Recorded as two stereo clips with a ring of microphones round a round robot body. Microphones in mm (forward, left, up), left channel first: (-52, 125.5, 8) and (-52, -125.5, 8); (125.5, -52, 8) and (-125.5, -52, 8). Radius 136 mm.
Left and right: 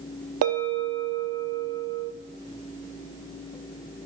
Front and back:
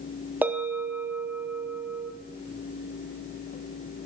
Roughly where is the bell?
Right.